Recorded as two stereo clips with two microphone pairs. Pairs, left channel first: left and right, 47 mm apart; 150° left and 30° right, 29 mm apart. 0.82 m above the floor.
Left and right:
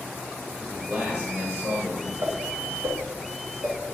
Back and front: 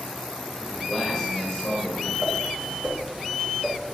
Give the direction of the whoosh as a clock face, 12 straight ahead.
3 o'clock.